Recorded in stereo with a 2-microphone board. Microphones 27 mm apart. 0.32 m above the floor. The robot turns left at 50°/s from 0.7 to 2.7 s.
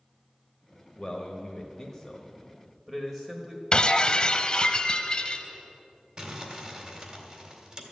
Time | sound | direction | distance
1.0 | a man speaking | 75° left | 1.2 m
3.7 | breaking glass | 35° left (ahead or behind) | 0.8 m
6.2 | crumpling | 35° right (ahead or behind) | 2.0 m